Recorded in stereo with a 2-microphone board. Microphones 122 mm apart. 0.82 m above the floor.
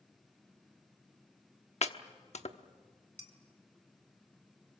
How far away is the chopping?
About 0.9 m.